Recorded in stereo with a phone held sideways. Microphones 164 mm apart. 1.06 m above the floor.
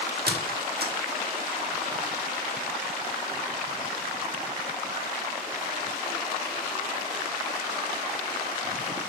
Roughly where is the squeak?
Right.